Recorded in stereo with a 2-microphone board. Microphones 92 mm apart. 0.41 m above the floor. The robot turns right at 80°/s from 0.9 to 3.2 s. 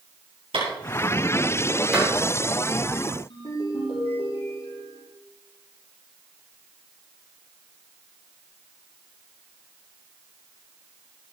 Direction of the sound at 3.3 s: 80° left.